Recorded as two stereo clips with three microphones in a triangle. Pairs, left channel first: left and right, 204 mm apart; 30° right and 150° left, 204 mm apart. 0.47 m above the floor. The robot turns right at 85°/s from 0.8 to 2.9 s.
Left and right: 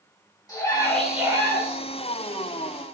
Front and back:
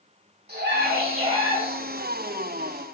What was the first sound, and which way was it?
A scream, 160° left.